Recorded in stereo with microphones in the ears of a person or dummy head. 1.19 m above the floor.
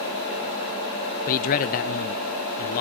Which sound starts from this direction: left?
A man speaking, at 1.3 s.